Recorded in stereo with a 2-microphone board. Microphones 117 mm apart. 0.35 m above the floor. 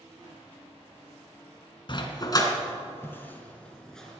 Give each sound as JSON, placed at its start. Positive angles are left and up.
{"t": 1.9, "sound": "a dog barking", "side_deg": 45, "distance_m": 1.5}